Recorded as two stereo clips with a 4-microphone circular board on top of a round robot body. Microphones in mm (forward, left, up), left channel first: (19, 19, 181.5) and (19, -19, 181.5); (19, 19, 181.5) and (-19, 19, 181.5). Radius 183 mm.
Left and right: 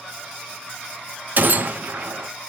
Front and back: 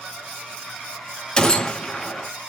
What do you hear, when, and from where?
1.4 s a gunshot: 65° right, 0.9 m